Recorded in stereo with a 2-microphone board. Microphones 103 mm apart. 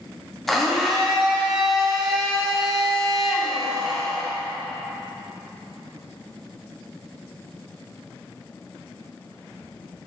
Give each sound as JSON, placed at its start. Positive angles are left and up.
{"t": 0.5, "sound": "a blender", "side_deg": 0, "distance_m": 1.0}